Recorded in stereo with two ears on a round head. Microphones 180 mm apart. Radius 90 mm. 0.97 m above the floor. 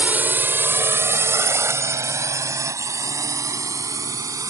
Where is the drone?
10° right (ahead or behind); by 4.5 s 15° right (ahead or behind).